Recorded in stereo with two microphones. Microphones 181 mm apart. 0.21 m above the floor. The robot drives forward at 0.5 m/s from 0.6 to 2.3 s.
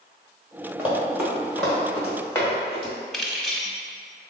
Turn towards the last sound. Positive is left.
turn(degrees=0)  # may be behind; listen again after turning